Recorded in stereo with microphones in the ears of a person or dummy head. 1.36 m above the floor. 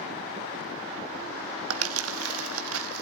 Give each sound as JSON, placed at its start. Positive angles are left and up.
{"t": 1.7, "sound": "crumpling", "side_deg": -80, "distance_m": 1.8}